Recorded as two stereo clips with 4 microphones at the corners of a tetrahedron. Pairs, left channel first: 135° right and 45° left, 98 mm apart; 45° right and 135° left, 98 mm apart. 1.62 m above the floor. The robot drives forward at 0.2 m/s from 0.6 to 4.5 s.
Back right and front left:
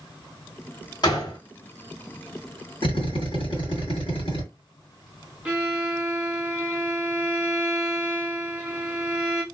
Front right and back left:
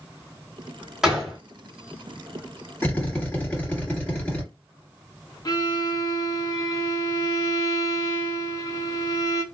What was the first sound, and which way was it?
A gunshot, 140° right.